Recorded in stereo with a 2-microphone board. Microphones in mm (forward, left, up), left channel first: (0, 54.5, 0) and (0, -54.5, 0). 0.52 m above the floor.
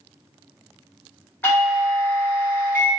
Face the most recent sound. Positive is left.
turn(degrees=20)  # may be behind; listen again after turning